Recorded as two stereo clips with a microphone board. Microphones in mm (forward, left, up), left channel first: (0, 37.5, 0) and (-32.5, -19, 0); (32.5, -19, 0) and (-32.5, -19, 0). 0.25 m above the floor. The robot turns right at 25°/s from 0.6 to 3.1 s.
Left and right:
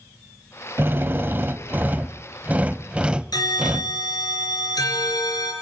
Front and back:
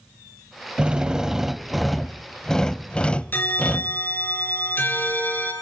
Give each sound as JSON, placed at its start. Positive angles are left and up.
{"t": 0.8, "sound": "a drill", "azimuth_deg": -120, "distance_m": 0.5}
{"t": 3.3, "sound": "a bell", "azimuth_deg": 55, "distance_m": 3.5}